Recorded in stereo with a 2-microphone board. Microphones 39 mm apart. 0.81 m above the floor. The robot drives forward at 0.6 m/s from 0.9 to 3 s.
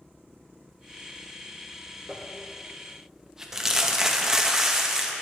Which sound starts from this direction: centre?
Crumpling, at 2.1 s.